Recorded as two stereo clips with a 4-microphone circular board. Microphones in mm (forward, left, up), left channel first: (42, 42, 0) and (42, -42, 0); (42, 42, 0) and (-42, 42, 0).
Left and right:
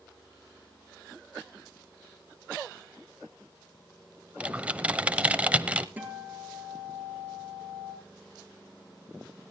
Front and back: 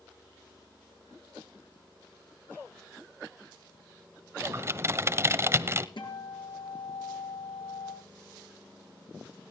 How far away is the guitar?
About 4 m.